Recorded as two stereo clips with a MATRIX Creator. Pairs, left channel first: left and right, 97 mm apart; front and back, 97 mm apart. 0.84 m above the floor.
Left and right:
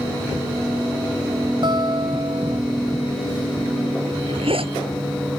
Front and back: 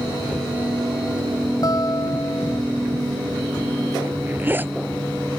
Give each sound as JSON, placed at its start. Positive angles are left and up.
{"t": 1.6, "sound": "a guitar", "azimuth_deg": -50}
{"t": 4.0, "sound": "a zipper", "azimuth_deg": -110}